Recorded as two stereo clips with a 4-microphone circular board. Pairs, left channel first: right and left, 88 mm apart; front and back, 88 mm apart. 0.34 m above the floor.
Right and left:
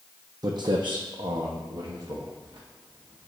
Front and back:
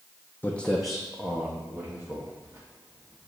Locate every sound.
0.4 s footsteps: 65° left, 0.6 m; by 3.3 s 125° left, 2 m